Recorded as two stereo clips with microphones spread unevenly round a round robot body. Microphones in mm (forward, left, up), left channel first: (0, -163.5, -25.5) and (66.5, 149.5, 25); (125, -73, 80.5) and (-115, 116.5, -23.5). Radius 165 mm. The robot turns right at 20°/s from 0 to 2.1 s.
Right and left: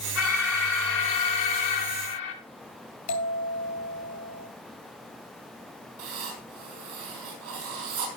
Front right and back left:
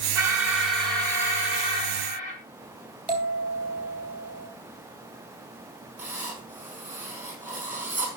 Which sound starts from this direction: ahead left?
Writing, at 6.0 s.